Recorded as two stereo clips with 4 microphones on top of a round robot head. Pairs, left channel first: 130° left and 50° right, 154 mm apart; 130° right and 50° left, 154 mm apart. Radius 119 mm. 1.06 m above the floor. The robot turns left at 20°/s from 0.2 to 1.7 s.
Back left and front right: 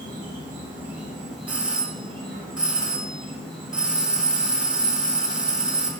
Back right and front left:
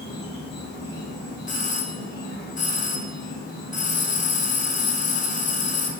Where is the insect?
115° right, 2.5 m; by 6.0 s 145° right, 2.5 m.